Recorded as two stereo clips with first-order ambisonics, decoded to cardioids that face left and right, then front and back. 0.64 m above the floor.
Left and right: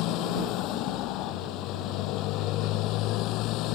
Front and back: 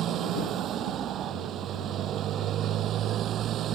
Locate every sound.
0.0 s a motorcycle: 125° left